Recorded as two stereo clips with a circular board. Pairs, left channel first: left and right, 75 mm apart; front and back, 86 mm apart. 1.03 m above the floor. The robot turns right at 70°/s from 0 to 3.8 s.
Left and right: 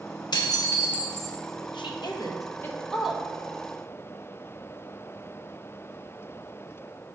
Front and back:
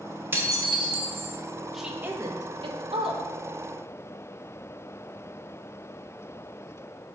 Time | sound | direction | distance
0.3 | dishes clattering | 115° left | 1.0 m
1.7 | a woman speaking | 90° left | 1.0 m